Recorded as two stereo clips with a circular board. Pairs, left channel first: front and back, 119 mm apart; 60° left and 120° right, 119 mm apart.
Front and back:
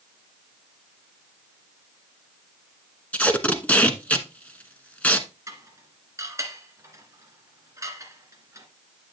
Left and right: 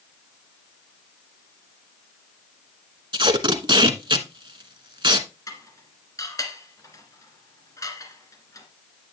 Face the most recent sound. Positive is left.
turn(degrees=120)